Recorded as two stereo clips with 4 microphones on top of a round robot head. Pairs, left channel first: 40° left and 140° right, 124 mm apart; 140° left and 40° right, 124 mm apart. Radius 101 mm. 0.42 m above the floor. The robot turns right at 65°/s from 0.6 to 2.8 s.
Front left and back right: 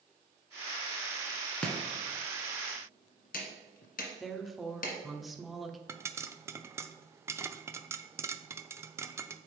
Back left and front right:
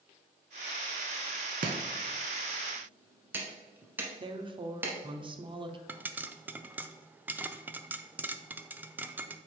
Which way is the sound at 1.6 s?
40° right.